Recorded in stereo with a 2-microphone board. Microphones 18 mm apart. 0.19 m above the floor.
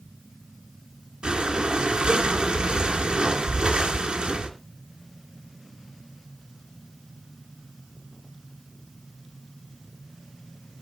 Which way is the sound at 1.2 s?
60° right (ahead or behind).